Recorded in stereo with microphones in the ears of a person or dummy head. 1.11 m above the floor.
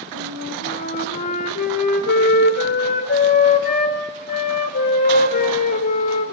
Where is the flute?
55° left (ahead or behind), 2.5 m.